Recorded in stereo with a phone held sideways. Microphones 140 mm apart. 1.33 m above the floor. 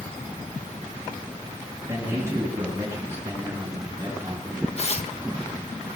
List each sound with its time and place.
1.9 s a man speaking: 20° right (ahead or behind), 6.5 m
4.8 s tearing paper: 50° left (ahead or behind), 1.3 m